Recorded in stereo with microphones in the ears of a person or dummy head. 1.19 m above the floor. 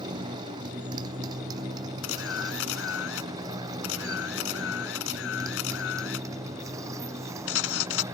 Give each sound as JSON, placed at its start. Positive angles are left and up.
{"t": 0.0, "sound": "a motorcycle", "side_deg": -30}
{"t": 2.0, "sound": "a camera shutter", "side_deg": 80}